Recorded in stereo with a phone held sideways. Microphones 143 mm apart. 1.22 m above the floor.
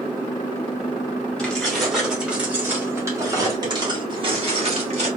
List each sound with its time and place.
1.4 s keys jangling: 5° left (ahead or behind), 2 m; by 5.1 s 50° right (ahead or behind), 2 m